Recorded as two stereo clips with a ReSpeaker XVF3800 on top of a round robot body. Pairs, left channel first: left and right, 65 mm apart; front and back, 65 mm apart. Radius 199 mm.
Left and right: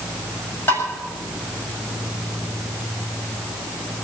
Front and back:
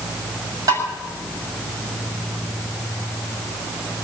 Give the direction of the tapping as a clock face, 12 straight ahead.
7 o'clock.